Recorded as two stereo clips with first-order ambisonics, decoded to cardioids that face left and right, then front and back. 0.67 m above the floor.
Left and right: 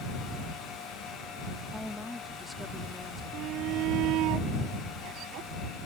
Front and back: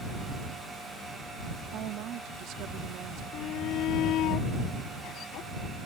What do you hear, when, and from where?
1.7 s a woman speaking: 170° left
3.3 s a shout: 45° right